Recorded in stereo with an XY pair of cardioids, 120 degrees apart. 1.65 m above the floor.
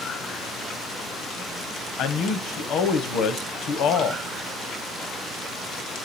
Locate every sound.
2.0 s a man speaking: 70° left, 1.0 m